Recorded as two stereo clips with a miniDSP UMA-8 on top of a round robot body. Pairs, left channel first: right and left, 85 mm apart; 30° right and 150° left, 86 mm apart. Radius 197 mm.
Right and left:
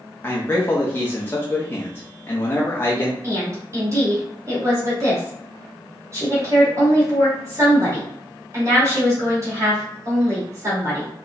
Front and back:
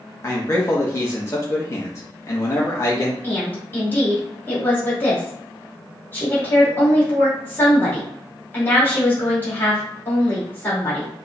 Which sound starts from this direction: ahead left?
A woman speaking, at 3.2 s.